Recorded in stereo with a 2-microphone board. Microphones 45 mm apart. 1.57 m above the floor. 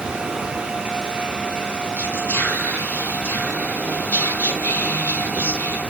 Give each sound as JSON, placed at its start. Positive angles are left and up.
{"t": 2.0, "sound": "whispering", "side_deg": 45, "distance_m": 0.8}